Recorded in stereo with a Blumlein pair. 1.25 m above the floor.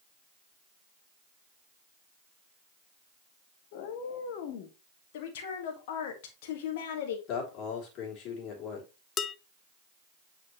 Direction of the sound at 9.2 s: 25° left.